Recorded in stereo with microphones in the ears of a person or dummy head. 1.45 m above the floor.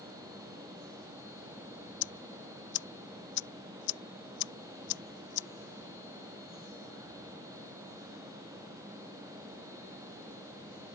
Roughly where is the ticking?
Left.